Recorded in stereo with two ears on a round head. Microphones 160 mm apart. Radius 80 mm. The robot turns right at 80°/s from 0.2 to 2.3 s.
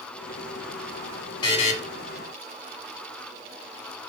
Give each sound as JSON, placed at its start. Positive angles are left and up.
{"t": 1.4, "sound": "a buzzer", "side_deg": 25, "distance_m": 1.3}